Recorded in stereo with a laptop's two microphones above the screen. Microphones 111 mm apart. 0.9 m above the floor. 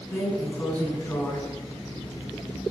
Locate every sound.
0.1 s a drawer: 15° left (ahead or behind), 4 m